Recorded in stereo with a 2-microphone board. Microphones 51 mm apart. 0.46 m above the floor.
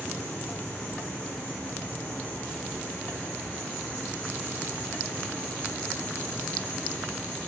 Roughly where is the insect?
Left.